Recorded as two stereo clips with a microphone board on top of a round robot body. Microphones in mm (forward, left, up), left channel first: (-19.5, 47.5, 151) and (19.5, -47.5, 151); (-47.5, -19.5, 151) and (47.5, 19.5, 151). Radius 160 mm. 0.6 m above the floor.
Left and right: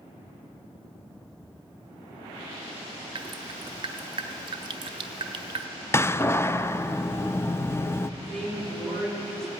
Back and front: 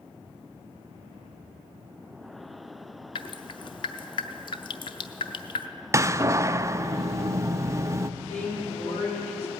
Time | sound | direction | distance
3.1 | dripping | 115° right | 0.6 m
5.9 | a door slam | 65° left | 0.6 m
8.2 | a woman speaking | 160° right | 6.5 m